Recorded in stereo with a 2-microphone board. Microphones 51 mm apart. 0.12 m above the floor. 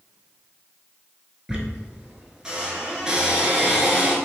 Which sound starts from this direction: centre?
A squeak, at 1.5 s.